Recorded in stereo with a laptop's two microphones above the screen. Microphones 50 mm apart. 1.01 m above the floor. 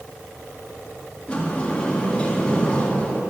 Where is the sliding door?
20° left (ahead or behind), 1.7 m.